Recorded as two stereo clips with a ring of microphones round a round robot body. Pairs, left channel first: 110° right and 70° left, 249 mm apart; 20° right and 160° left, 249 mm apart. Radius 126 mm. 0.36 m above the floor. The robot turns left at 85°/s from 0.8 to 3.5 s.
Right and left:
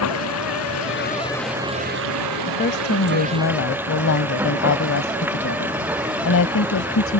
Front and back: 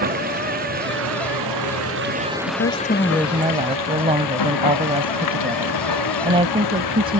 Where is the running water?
145° right; by 7.2 s 15° right.